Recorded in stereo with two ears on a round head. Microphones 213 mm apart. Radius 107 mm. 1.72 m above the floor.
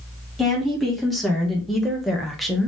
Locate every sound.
0.4 s a woman speaking: centre (ahead or behind), 2.5 m